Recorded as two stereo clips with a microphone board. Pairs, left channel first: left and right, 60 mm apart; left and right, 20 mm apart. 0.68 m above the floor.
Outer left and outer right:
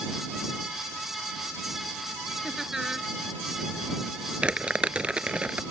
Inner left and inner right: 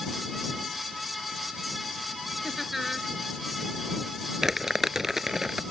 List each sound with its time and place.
2.4 s laughter: 10° right (ahead or behind)
4.4 s crumpling: 20° right (ahead or behind)